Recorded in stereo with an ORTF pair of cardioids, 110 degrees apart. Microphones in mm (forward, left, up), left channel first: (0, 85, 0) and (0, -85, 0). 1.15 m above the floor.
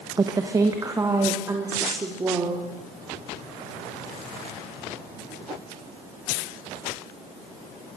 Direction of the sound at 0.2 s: 25° right.